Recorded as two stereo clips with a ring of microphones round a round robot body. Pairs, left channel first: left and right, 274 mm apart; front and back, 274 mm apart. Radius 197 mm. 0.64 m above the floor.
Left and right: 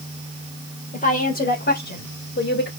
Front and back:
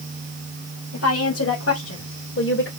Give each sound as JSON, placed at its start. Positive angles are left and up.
{"t": 0.9, "sound": "a woman speaking", "azimuth_deg": 30, "distance_m": 2.5}